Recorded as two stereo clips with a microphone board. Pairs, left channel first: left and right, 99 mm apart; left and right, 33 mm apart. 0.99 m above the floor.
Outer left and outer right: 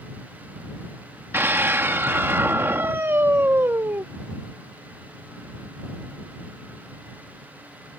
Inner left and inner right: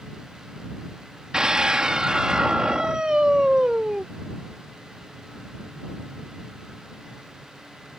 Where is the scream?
25° right (ahead or behind).